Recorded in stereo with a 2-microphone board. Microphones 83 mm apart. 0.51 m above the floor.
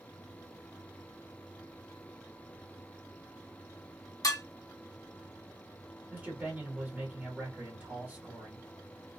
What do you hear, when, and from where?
4.2 s dishes clattering: 50° left (ahead or behind), 0.7 m
6.1 s a man speaking: 20° right (ahead or behind), 1.3 m